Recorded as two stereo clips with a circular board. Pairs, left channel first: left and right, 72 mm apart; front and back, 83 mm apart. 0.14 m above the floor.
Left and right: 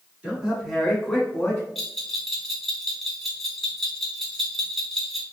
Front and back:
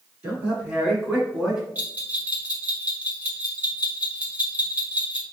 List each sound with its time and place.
0.2 s a man speaking: 145° right, 1.3 m; by 1.6 s 115° left, 1.3 m
1.8 s a bell: 170° left, 0.9 m